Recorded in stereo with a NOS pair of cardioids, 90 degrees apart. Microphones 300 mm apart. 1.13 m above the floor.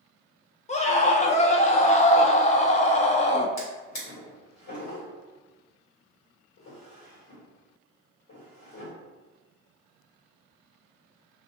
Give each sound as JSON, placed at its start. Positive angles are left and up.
{"t": 0.7, "sound": "a scream", "azimuth_deg": 25, "distance_m": 0.5}
{"t": 3.6, "sound": "a drawer", "azimuth_deg": 65, "distance_m": 1.8}